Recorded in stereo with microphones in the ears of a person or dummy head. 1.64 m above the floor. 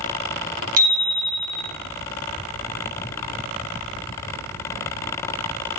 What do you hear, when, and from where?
0.8 s a bicycle bell: 50° right (ahead or behind), 3 m